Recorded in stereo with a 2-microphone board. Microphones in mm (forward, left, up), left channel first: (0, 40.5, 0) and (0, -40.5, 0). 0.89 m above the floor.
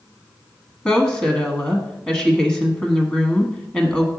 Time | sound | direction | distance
0.8 | a woman speaking | 15° left (ahead or behind) | 1.1 m